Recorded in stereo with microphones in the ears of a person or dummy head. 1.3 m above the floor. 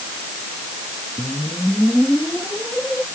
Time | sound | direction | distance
1.2 | a whoosh | 5° left (ahead or behind) | ?